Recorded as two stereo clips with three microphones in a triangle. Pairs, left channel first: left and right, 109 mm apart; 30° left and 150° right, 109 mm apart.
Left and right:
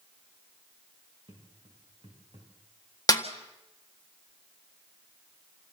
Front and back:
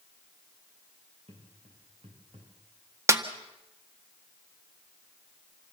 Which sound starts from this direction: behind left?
A snare drum, at 3.1 s.